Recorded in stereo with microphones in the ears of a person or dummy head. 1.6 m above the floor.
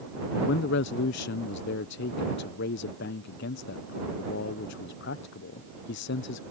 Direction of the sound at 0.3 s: 65° left (ahead or behind).